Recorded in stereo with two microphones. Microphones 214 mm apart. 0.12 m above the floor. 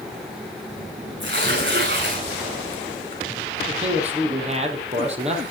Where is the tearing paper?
60° right (ahead or behind), 6.5 m.